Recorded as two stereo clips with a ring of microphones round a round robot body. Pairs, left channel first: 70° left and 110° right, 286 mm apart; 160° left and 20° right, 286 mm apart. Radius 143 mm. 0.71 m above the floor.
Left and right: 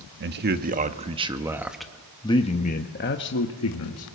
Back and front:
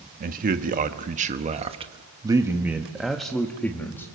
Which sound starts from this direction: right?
A man speaking, at 0.2 s.